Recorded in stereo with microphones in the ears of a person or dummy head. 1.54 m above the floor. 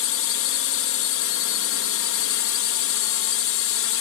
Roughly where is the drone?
Left.